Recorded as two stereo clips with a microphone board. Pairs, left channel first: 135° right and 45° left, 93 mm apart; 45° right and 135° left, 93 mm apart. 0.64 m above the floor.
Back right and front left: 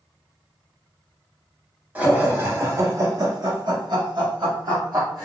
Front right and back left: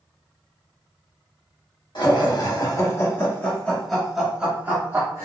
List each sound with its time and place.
1.9 s laughter: 20° right, 1.2 m; by 5.3 s 80° left, 1.3 m